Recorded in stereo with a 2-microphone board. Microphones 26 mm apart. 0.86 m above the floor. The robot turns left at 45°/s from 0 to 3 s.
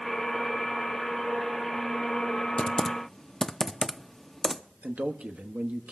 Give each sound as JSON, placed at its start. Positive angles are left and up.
{"t": 2.6, "sound": "typing on a keyboard", "side_deg": 40, "distance_m": 0.5}
{"t": 4.8, "sound": "a man speaking", "side_deg": -65, "distance_m": 1.1}